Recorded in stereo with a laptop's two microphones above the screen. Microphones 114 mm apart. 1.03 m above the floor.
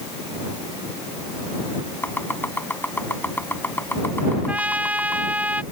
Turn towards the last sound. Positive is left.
turn(degrees=-15)  # may be behind; listen again after turning